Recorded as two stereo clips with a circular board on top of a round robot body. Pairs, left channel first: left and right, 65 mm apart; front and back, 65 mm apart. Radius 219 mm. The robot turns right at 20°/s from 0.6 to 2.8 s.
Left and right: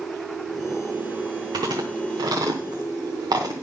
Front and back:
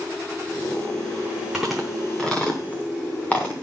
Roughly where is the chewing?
Right.